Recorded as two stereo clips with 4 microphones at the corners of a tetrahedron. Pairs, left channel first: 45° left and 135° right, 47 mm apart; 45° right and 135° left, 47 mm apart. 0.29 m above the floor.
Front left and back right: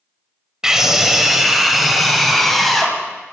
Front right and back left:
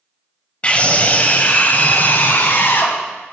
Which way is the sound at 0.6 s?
70° right.